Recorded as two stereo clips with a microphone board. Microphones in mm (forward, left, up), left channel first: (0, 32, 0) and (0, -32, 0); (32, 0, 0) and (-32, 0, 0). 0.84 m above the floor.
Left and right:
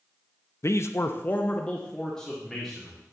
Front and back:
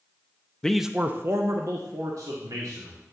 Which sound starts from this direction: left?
A man speaking, at 0.6 s.